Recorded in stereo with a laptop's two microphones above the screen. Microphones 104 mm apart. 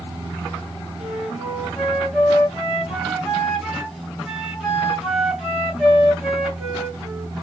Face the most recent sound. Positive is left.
turn(degrees=-5)  # may be behind; listen again after turning